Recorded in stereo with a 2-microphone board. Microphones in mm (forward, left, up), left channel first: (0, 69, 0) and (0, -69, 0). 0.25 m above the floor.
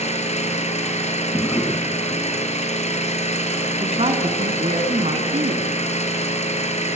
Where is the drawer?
15° left (ahead or behind), 1.2 m.